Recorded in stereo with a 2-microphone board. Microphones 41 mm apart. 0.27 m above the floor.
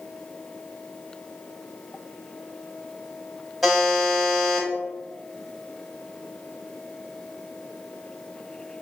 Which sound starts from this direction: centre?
A buzzer, at 3.6 s.